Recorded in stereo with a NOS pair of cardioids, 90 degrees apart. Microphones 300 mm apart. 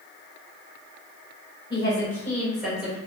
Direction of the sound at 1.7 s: 15° left.